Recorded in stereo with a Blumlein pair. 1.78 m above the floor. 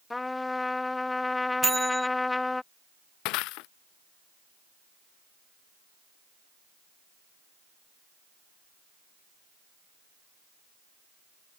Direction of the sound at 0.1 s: 10° left.